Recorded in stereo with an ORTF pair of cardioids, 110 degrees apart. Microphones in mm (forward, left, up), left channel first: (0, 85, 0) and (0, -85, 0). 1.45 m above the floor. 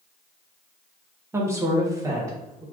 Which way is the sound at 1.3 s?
15° right.